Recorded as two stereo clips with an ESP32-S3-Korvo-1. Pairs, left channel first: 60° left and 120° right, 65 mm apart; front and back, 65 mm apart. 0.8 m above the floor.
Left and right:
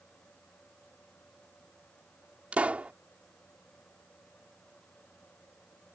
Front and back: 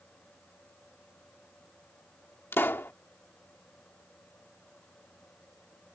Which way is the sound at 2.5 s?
50° right.